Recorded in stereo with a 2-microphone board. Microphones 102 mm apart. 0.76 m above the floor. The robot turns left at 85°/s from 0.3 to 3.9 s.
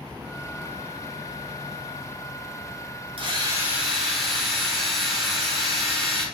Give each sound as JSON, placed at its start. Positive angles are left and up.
{"t": 3.2, "sound": "a drill", "azimuth_deg": -120, "distance_m": 1.6}